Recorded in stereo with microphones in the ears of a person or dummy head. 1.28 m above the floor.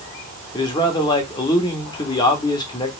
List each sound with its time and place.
0.5 s a man speaking: 20° left (ahead or behind), 0.9 m